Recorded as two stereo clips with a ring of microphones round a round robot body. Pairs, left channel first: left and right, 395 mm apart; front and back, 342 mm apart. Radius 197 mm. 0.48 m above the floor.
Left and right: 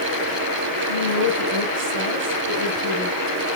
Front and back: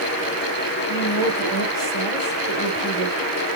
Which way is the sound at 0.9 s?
105° right.